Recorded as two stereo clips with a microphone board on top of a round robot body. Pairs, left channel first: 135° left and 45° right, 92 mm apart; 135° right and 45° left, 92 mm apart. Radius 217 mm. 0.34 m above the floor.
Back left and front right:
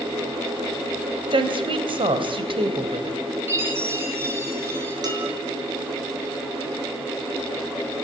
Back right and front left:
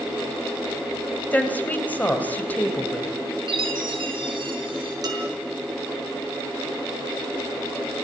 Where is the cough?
No cough in this recording.